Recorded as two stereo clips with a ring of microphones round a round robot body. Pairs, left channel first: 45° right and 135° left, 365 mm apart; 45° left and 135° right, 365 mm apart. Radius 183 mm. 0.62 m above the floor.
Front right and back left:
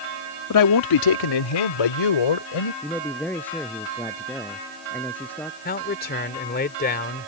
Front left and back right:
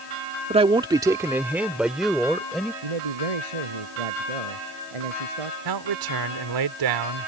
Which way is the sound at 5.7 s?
110° right.